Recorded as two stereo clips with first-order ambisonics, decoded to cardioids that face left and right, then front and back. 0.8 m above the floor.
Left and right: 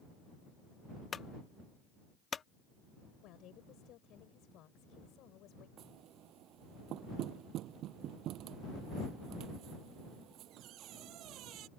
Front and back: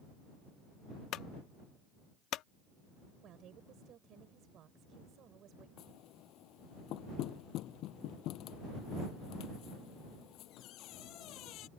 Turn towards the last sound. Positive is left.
turn(degrees=-45)